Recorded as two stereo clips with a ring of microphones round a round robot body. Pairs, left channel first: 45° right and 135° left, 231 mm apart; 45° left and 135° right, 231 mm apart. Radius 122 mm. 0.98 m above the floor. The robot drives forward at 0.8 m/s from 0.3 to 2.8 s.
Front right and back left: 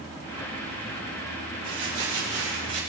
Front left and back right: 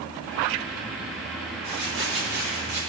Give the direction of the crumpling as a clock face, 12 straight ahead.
6 o'clock.